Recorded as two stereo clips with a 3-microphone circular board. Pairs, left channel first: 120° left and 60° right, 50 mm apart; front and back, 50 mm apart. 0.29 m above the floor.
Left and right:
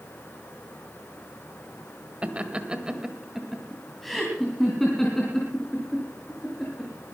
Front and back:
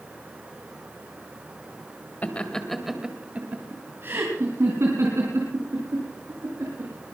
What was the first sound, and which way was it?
Laughter, 25° right.